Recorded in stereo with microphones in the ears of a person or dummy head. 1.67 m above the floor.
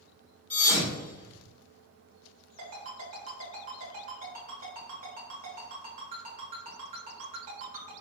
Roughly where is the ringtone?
Right.